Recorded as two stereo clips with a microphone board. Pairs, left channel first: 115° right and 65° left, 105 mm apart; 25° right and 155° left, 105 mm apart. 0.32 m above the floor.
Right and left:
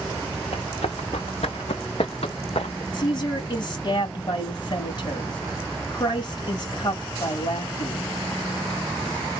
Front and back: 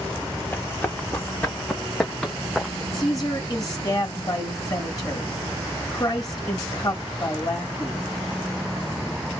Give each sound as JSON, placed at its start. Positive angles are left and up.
{"t": 0.5, "sound": "running footsteps", "azimuth_deg": -95, "distance_m": 2.5}
{"t": 2.9, "sound": "a woman speaking", "azimuth_deg": -80, "distance_m": 2.5}